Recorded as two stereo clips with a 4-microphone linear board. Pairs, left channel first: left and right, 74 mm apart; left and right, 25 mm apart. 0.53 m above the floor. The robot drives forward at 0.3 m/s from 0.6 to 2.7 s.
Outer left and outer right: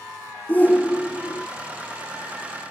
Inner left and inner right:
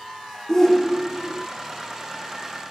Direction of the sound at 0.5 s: 20° left (ahead or behind).